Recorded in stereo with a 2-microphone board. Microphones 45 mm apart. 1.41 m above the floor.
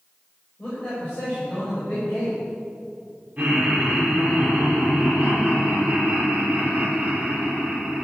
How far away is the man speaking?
About 6.5 m.